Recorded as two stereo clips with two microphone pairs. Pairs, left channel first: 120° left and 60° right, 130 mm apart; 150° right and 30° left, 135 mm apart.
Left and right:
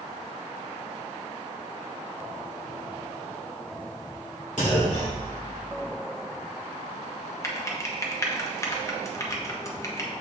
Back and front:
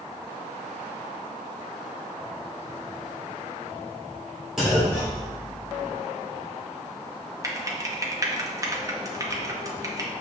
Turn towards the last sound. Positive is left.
turn(degrees=75)